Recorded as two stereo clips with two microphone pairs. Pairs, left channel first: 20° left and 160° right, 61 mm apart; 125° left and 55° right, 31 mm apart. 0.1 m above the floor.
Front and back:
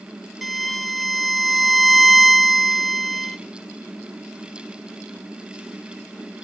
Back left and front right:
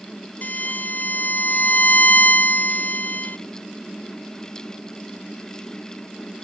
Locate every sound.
0.4 s a violin: 115° left, 0.6 m